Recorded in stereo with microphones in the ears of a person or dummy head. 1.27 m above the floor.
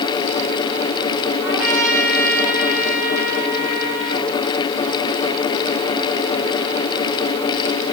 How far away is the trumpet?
About 8.5 m.